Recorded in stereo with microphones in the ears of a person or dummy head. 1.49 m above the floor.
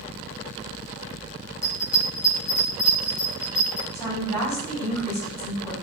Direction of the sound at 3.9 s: 15° left (ahead or behind).